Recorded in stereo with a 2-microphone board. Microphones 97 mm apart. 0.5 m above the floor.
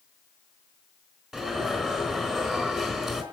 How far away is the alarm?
About 4 m.